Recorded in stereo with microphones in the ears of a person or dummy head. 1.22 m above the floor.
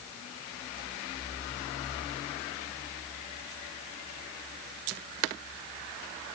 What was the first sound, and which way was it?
Only background noise.